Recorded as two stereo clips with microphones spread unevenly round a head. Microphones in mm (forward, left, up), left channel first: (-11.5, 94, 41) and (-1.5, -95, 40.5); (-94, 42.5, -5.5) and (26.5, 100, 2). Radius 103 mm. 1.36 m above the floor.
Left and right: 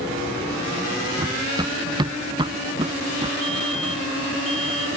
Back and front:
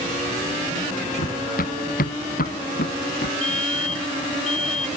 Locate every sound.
1.2 s running footsteps: 160° right; by 3.3 s 150° right
3.4 s a fire alarm: straight behind